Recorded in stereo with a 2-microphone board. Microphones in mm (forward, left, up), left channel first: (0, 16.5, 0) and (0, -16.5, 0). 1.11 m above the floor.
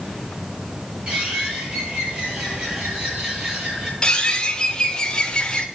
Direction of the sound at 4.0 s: 25° left (ahead or behind).